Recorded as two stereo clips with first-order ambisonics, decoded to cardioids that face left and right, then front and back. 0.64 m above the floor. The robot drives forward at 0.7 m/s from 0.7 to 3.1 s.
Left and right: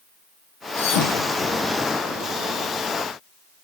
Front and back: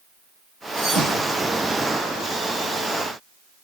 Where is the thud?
85° left, 7 m; by 1.7 s 90° left, 7 m.